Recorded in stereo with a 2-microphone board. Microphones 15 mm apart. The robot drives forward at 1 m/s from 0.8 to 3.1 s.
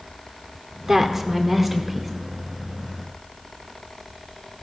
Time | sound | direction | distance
0.9 | a woman speaking | 30° right (ahead or behind) | 1.2 m